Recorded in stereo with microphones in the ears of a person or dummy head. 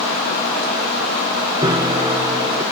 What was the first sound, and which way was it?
A piano, 20° right (ahead or behind).